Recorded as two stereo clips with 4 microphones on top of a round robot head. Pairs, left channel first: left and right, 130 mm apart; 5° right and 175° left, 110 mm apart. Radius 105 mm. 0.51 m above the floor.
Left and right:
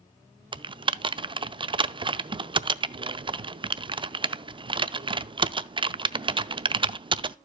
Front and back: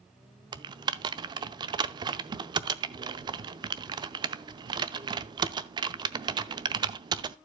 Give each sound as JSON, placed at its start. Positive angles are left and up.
{"t": 0.5, "sound": "typing on a keyboard", "azimuth_deg": -140, "distance_m": 0.5}